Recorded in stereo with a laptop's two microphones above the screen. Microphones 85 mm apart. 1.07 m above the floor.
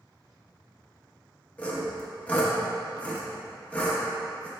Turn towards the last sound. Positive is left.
turn(degrees=15)  # may be behind; listen again after turning